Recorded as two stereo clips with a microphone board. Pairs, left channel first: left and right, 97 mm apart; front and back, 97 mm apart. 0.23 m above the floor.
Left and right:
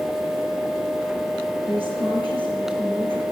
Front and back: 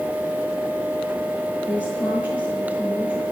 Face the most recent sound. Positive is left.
turn(degrees=-110)